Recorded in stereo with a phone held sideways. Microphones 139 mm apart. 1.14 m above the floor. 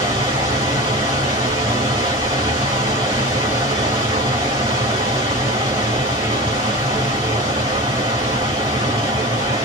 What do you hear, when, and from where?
0.0 s a machine running: 25° right (ahead or behind), 1.6 m